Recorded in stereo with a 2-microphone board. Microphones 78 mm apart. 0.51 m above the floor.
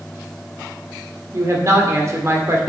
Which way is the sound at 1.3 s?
40° right (ahead or behind).